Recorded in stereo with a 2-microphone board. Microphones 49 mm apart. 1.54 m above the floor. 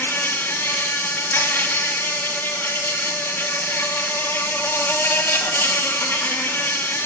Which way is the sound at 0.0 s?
50° left (ahead or behind).